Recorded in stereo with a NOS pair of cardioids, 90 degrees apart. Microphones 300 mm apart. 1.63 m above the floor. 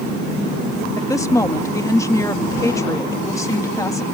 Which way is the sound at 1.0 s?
10° left.